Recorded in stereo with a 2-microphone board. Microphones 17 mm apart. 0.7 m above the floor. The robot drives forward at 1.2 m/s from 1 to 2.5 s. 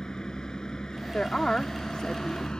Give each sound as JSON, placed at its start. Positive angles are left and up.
{"t": 0.0, "sound": "a vehicle", "side_deg": 35}
{"t": 1.1, "sound": "a woman speaking", "side_deg": 55}